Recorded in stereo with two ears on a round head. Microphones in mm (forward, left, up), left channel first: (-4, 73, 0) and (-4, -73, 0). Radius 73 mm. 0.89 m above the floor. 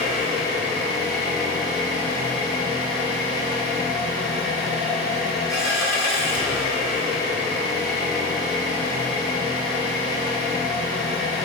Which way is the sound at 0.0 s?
20° left (ahead or behind).